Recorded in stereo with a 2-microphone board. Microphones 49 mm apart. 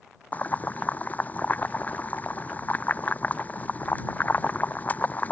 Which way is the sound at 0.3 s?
35° left (ahead or behind).